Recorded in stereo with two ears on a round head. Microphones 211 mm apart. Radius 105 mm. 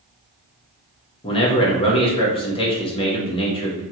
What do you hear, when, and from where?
1.2 s a man speaking: 25° left (ahead or behind), 0.9 m